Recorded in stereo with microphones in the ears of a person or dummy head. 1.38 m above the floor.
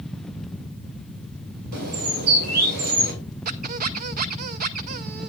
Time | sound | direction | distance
1.7 | a bird | 55° right (ahead or behind) | 6.5 m
3.5 | a squeak | 40° right (ahead or behind) | 0.6 m